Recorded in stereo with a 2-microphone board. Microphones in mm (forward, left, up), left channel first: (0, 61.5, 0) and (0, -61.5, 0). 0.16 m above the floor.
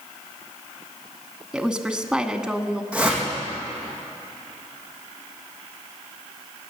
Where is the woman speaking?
5° right (ahead or behind), 1.1 m.